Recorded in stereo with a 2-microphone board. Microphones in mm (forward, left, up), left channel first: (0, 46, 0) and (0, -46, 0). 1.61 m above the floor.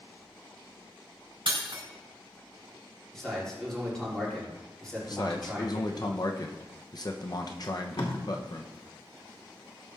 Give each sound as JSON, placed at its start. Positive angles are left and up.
{"t": 1.5, "sound": "breaking glass", "side_deg": -60, "distance_m": 4.0}
{"t": 3.1, "sound": "a man speaking", "side_deg": 5, "distance_m": 5.0}
{"t": 5.1, "sound": "a man speaking", "side_deg": 45, "distance_m": 1.0}
{"t": 7.6, "sound": "tape being pulled", "side_deg": 65, "distance_m": 2.5}